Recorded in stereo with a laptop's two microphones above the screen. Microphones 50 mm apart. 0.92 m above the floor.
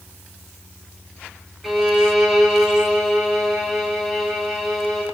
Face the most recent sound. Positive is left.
turn(degrees=-5)  # may be behind; listen again after turning